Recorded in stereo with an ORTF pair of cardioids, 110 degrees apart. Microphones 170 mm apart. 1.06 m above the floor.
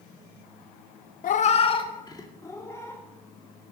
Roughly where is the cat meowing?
Ahead left.